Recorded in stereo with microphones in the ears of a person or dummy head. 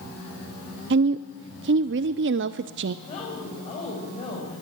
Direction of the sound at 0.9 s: 55° right (ahead or behind).